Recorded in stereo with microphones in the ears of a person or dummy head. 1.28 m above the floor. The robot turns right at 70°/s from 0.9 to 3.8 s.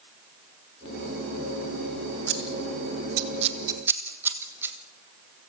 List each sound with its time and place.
2.3 s scissors: 60° right (ahead or behind), 2.5 m; by 4.8 s 15° right (ahead or behind), 2.5 m